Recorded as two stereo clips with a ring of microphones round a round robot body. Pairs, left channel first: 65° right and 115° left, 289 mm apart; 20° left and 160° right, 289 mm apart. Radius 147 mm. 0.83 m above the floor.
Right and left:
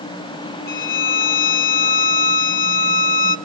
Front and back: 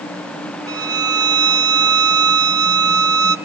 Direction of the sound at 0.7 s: 90° right.